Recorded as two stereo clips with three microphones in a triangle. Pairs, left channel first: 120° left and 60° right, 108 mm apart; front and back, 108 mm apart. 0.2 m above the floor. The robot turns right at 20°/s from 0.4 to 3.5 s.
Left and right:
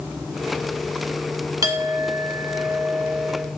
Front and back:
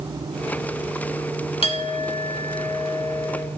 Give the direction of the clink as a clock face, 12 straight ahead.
12 o'clock.